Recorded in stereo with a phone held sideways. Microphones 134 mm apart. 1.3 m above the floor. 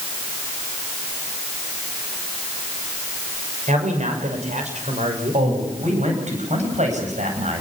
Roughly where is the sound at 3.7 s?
Right.